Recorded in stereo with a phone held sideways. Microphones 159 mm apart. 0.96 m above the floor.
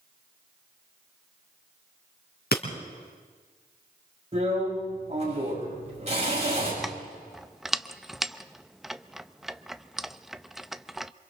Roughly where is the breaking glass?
Left.